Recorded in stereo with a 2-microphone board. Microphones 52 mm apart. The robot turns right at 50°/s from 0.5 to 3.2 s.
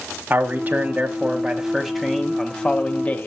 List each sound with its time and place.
0.3 s a man speaking: 75° right, 1.1 m; by 3.3 s 60° left, 1.1 m